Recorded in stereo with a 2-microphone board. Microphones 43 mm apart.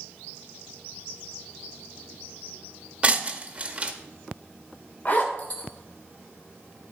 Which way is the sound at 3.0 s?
25° right (ahead or behind).